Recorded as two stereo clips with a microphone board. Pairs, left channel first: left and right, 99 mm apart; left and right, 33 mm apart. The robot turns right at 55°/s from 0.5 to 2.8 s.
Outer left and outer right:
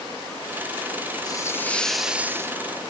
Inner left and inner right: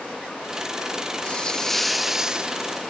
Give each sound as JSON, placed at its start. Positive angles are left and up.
{"t": 1.2, "sound": "a hiss", "azimuth_deg": 140}